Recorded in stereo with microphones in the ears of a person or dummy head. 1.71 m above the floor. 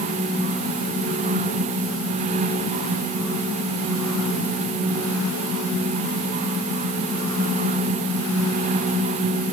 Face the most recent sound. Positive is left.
No sound to turn to.